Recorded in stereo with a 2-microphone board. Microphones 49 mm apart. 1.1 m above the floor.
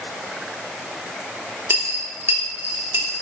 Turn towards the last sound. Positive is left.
turn(degrees=-40)  # may be behind; listen again after turning